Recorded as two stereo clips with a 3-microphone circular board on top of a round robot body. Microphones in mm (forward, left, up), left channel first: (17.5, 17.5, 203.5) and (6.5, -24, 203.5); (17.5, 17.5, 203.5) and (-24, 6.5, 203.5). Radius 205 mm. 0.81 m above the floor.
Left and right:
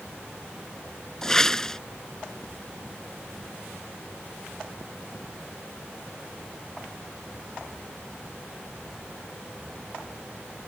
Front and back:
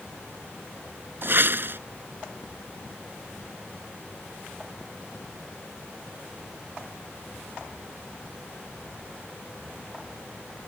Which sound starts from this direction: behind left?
A whoosh, at 1.2 s.